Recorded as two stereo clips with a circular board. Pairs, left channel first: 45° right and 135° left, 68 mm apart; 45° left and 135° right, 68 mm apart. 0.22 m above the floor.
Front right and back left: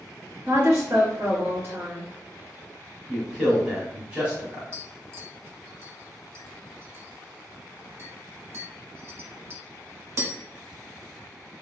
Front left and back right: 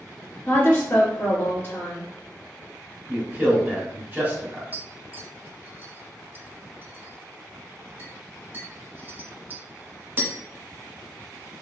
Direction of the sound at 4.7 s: 170° left.